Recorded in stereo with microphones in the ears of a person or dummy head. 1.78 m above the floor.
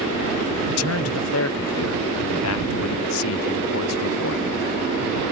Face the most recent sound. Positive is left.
turn(degrees=85)